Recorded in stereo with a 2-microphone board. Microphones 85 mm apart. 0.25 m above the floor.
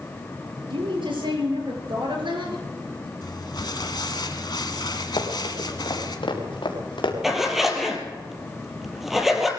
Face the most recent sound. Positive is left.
turn(degrees=-5)  # may be behind; listen again after turning